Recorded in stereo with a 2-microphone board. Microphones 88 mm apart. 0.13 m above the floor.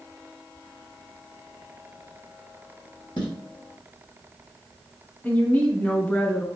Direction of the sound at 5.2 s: 15° left (ahead or behind).